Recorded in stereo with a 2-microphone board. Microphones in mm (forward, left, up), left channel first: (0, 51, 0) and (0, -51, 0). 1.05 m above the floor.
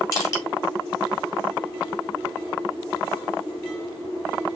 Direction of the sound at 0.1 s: 30° left (ahead or behind).